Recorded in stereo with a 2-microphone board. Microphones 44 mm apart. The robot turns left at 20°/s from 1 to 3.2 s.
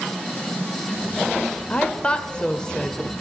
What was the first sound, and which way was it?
A woman speaking, 25° left (ahead or behind).